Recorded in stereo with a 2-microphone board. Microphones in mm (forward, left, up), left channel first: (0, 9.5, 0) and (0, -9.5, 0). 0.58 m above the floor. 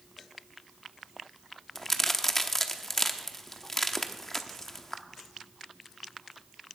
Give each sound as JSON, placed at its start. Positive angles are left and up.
{"t": 1.8, "sound": "a crack", "side_deg": 20, "distance_m": 0.8}